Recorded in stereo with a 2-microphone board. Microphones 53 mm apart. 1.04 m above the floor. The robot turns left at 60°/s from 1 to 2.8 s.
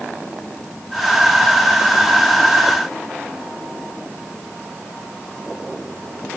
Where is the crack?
I don't hear a crack.